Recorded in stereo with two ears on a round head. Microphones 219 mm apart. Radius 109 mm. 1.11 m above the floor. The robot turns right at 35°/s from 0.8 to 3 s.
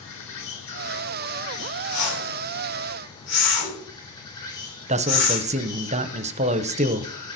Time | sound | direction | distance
0.0 | an insect | 85° left | 5 m
1.9 | a whoosh | 85° left | 5 m
4.9 | a man speaking | 30° right (ahead or behind) | 0.8 m